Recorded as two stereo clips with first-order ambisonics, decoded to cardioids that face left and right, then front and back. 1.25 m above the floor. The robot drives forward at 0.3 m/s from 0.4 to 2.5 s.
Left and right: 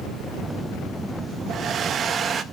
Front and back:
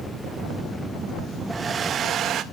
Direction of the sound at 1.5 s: 115° right.